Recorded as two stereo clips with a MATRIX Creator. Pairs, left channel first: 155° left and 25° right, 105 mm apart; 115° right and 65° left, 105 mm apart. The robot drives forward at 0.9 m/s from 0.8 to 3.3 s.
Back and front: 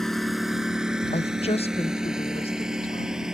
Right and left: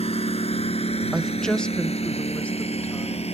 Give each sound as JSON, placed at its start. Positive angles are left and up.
{"t": 0.0, "sound": "a lawn mower", "azimuth_deg": -115}
{"t": 1.1, "sound": "a woman speaking", "azimuth_deg": 155}